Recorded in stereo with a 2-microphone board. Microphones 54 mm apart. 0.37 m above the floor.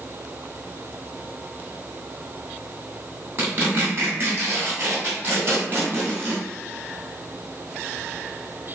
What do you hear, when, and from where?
3.4 s tearing paper: 40° right (ahead or behind), 1.9 m